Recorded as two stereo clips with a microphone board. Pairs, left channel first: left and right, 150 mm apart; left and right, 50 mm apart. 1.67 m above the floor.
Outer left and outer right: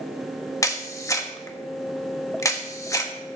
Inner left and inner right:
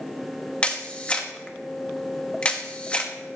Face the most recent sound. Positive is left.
turn(degrees=20)  # may be behind; listen again after turning